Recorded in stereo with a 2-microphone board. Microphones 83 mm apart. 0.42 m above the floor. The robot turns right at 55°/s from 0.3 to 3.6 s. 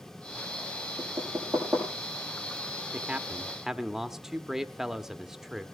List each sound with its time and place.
1.0 s knocking: 40° right (ahead or behind), 8.5 m; by 1.9 s 10° left (ahead or behind), 8.5 m
2.9 s a man speaking: 15° right (ahead or behind), 0.7 m; by 5.7 s 5° right (ahead or behind), 0.7 m